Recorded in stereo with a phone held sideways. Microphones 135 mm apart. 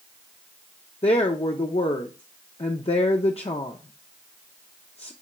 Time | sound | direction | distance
1.0 | a woman speaking | 50° left (ahead or behind) | 0.5 m